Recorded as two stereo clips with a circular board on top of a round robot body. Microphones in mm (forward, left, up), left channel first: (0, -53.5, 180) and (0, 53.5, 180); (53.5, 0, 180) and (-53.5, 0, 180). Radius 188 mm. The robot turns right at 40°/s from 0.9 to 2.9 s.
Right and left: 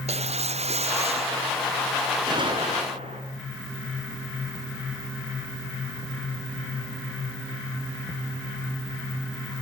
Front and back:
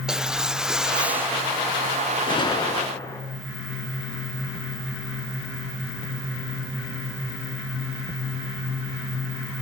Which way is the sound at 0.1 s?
95° left.